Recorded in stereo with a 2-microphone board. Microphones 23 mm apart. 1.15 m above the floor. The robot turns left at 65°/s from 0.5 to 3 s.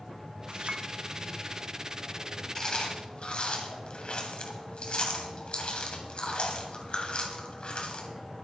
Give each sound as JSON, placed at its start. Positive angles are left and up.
{"t": 0.5, "sound": "a clink", "side_deg": -60, "distance_m": 1.6}
{"t": 2.5, "sound": "chewing", "side_deg": 30, "distance_m": 2.0}